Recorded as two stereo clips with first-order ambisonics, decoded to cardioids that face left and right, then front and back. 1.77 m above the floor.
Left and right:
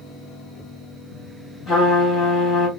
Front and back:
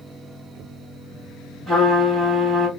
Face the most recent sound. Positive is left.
turn(degrees=130)